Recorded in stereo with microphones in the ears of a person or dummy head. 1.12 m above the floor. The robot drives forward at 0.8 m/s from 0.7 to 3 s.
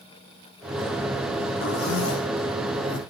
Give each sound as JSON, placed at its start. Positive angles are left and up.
{"t": 1.6, "sound": "a zipper", "side_deg": 85, "distance_m": 2.0}